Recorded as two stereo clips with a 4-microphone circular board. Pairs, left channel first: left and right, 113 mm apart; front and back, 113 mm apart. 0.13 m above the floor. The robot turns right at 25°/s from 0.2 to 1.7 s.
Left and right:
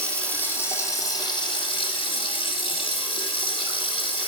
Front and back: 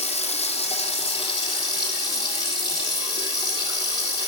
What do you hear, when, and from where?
0.0 s running water: 10° left, 3.5 m; by 4.3 s 50° left, 3.5 m